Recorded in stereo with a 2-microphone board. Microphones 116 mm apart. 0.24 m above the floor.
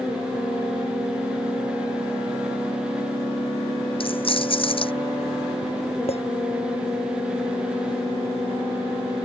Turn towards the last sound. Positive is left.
turn(degrees=60)  # may be behind; listen again after turning